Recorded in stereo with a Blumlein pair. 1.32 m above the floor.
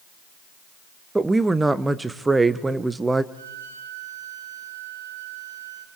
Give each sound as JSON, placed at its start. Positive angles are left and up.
{"t": 1.1, "sound": "a woman speaking", "azimuth_deg": -10, "distance_m": 0.9}
{"t": 3.3, "sound": "a violin", "azimuth_deg": -70, "distance_m": 2.0}